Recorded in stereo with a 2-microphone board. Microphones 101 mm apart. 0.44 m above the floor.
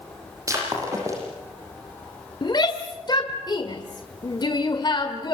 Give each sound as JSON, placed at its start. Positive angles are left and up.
{"t": 0.5, "sound": "breaking glass", "side_deg": -30, "distance_m": 8.5}
{"t": 2.4, "sound": "a shout", "side_deg": 45, "distance_m": 1.6}